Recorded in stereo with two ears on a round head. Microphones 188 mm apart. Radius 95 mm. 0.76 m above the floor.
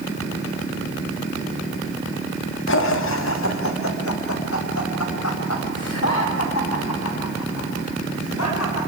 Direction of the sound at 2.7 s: 60° left (ahead or behind).